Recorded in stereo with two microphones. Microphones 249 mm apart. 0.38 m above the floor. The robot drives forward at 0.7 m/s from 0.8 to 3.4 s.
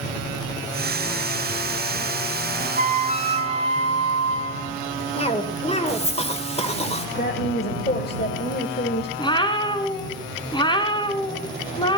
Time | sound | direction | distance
2.8 | a flute | 35° right (ahead or behind) | 1.0 m
5.2 | a cough | 25° left (ahead or behind) | 1.2 m
7.2 | a woman speaking | 40° left (ahead or behind) | 1.2 m
9.2 | a cat meowing | 20° left (ahead or behind) | 1.3 m